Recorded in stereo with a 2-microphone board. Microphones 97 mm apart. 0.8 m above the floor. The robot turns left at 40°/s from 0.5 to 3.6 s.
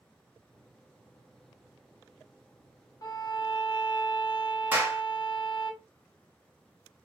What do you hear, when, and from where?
3.0 s a violin: 40° left (ahead or behind), 0.5 m; by 5.7 s 55° left (ahead or behind), 0.5 m
4.7 s a clap: 20° right (ahead or behind), 0.7 m